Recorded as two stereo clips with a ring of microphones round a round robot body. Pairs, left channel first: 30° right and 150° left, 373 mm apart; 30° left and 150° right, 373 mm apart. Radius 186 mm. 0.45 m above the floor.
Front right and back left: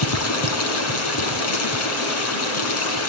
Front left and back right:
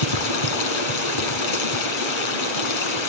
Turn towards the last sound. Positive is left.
turn(degrees=20)